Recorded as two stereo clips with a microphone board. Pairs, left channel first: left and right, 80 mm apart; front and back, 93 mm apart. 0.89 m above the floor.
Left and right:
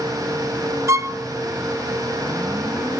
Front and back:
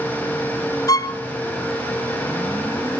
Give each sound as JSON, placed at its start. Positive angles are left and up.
{"t": 0.9, "sound": "a violin", "azimuth_deg": -40, "distance_m": 0.8}